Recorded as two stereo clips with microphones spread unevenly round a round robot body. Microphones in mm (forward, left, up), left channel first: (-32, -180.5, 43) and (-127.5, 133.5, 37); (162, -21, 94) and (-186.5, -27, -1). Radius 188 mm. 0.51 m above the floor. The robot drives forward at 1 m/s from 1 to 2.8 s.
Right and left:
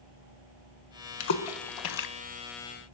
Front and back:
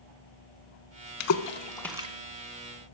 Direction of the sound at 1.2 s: 35° right.